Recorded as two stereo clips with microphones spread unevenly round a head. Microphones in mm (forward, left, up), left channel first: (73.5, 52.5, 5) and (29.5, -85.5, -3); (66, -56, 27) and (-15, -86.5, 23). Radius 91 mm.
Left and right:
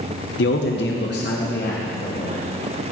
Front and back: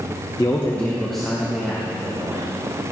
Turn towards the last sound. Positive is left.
turn(degrees=120)